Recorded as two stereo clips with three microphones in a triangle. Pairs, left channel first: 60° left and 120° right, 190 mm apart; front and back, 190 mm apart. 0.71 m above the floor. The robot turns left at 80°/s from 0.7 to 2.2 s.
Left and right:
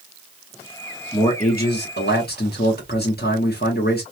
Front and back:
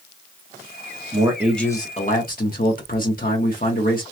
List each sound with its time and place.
1.1 s a man speaking: 120° left, 1.1 m; by 4.0 s 35° left, 1.1 m